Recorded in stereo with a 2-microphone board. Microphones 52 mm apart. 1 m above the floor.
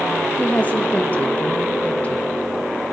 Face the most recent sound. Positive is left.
turn(degrees=30)  # may be behind; listen again after turning